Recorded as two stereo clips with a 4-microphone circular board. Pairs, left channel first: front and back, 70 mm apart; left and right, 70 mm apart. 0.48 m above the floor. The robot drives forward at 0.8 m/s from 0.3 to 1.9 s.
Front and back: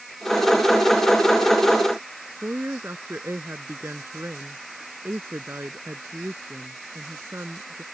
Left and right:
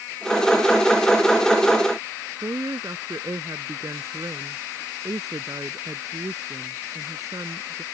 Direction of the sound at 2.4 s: 125° right.